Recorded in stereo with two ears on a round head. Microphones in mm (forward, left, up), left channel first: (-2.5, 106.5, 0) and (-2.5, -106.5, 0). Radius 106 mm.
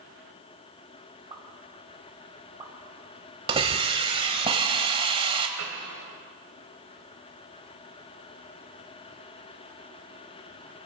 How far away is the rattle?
I don't hear a rattle.